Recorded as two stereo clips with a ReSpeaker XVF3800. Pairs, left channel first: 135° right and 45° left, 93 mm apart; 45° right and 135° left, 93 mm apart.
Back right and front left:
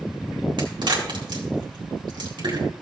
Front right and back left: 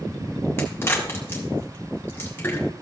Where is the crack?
15° left, 2 m.